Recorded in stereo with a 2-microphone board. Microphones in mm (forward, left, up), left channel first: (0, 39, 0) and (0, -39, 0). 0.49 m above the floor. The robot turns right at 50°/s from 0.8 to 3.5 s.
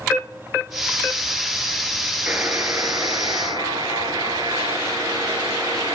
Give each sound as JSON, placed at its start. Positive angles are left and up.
{"t": 2.3, "sound": "a buzzer", "azimuth_deg": -160, "distance_m": 2.0}